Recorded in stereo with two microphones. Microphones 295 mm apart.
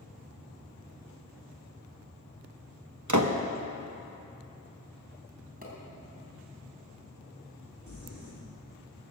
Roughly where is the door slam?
Right.